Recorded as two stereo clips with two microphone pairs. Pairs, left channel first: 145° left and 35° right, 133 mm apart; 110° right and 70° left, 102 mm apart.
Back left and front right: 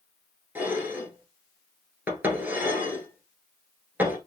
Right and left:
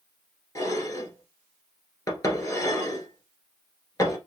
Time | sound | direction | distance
0.6 | dishes clattering | 100° right | 1.2 m